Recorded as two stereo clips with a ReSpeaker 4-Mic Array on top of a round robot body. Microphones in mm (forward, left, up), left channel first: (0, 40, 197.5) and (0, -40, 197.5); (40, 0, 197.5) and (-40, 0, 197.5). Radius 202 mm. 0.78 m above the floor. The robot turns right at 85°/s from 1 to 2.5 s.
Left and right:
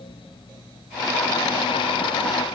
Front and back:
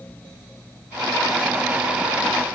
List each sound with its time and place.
Only background noise.